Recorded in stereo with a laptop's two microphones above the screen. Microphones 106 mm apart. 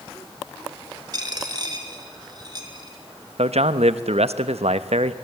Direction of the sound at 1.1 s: 40° right (ahead or behind).